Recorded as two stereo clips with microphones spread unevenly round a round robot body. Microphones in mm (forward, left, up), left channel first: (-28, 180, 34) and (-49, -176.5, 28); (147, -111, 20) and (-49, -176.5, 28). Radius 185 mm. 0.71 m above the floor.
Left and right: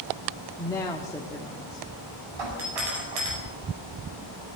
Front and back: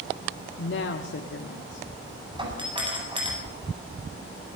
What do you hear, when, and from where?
0.6 s a woman speaking: 5° left, 1.5 m
2.4 s a doorbell: 95° right, 9 m